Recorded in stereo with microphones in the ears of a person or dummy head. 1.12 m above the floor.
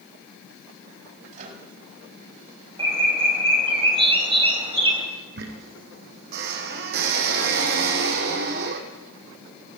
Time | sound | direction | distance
1.3 | a microwave | 40° right (ahead or behind) | 6 m
2.8 | a bird | 35° right (ahead or behind) | 3 m
5.4 | a squeak | 55° right (ahead or behind) | 3.5 m